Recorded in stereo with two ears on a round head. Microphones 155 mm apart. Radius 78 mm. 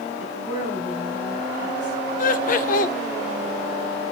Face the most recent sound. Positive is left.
turn(degrees=50)  # may be behind; listen again after turning